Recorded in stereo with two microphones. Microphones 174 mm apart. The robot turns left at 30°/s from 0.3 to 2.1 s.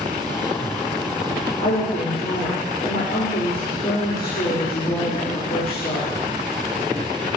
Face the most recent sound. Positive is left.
turn(degrees=50)  # may be behind; listen again after turning